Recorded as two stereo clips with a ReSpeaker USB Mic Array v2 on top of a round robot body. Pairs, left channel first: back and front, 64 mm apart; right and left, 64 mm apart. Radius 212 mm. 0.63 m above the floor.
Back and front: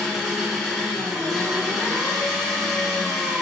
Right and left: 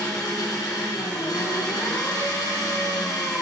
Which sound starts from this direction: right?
An engine running, at 0.0 s.